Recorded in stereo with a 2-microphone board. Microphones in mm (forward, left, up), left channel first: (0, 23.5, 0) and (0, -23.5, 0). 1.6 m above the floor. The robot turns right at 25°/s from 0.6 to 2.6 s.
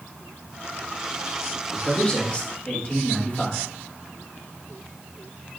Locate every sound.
1.7 s a man speaking: 15° left (ahead or behind), 2.5 m; by 3.7 s 40° left (ahead or behind), 2.5 m